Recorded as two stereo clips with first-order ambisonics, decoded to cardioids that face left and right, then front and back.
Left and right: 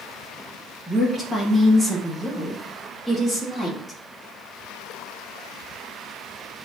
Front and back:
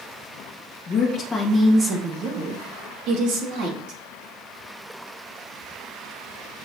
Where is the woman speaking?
Straight ahead, 0.9 m; by 4.0 s straight behind, 1.9 m.